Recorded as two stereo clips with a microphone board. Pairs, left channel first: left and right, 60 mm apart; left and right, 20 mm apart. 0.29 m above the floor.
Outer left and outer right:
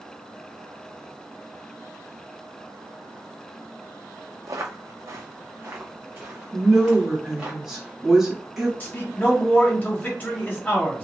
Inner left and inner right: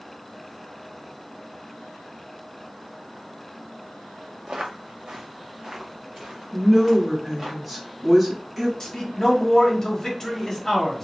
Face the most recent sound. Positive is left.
turn(degrees=30)  # may be behind; listen again after turning